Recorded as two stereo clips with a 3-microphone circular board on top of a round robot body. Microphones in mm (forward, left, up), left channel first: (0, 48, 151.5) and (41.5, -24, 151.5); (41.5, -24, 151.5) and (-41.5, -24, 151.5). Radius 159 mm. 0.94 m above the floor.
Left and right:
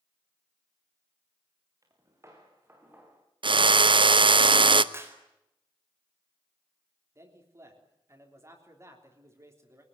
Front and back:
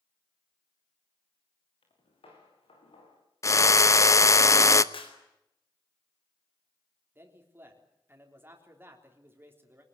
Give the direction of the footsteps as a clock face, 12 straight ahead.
12 o'clock.